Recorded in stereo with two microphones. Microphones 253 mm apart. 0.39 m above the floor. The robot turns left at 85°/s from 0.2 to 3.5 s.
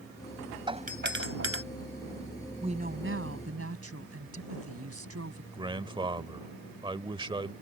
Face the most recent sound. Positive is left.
turn(degrees=-20)  # may be behind; listen again after turning